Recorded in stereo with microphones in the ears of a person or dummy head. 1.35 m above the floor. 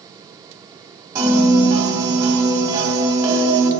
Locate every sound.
1.1 s a piano: 20° right (ahead or behind), 1.9 m